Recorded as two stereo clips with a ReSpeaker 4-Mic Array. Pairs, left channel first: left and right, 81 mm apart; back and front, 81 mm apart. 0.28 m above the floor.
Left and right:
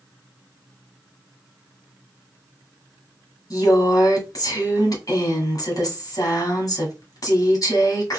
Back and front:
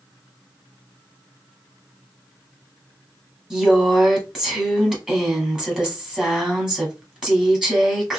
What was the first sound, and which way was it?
A woman speaking, 80° left.